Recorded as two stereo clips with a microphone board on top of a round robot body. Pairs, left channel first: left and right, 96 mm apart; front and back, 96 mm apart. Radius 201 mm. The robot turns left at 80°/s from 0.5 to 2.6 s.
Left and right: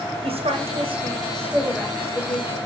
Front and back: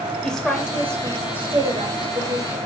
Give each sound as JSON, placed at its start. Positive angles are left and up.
{"t": 0.2, "sound": "a woman speaking", "azimuth_deg": -80, "distance_m": 2.0}